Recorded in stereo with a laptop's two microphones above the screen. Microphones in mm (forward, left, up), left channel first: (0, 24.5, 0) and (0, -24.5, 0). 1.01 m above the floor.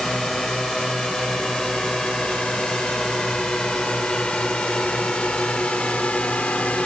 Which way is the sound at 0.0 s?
10° left (ahead or behind).